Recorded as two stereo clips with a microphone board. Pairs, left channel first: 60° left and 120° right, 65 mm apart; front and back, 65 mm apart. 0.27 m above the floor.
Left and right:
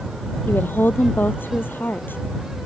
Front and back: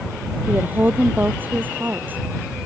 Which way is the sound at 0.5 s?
120° left.